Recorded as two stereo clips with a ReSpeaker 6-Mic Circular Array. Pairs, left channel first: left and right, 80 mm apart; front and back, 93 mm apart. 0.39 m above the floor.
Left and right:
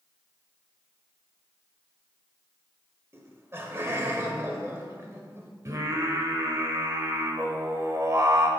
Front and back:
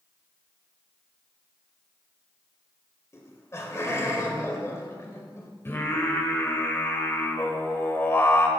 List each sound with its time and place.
3.1 s laughter: 45° right, 1.7 m
5.7 s singing: 55° right, 1.1 m